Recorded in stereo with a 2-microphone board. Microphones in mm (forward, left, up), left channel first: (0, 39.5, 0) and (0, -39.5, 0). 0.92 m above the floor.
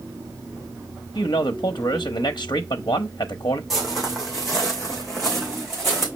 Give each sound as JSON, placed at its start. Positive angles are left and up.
{"t": 1.1, "sound": "a man speaking", "side_deg": 70, "distance_m": 0.6}
{"t": 3.7, "sound": "footsteps", "side_deg": -5, "distance_m": 3.0}